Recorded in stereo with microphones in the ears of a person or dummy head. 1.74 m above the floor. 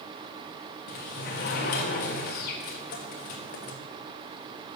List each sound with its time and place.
0.9 s a sliding door: 45° left (ahead or behind), 1.4 m